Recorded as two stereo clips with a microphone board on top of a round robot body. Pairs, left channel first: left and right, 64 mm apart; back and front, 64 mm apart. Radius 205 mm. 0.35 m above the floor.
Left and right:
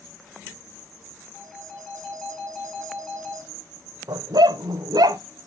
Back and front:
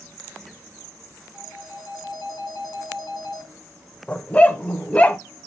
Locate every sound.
1.3 s a phone ringing: 165° left, 3 m
4.1 s a dog barking: 110° right, 0.6 m